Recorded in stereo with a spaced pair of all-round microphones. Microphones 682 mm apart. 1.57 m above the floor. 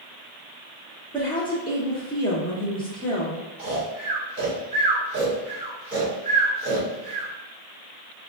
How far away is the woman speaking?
About 0.8 m.